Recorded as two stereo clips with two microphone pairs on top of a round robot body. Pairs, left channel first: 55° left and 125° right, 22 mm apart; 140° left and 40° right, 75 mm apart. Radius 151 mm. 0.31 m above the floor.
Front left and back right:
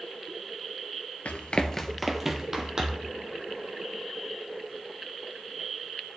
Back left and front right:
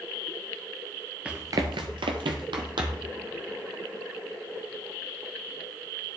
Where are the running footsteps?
35° left, 0.5 m; by 3.1 s 70° right, 1.5 m.